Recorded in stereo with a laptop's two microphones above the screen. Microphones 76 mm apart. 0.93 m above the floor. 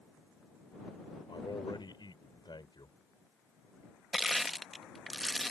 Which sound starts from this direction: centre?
Crushing, at 4.1 s.